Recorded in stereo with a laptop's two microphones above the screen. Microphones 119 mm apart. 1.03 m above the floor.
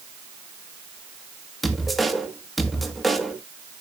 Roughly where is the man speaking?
Centre.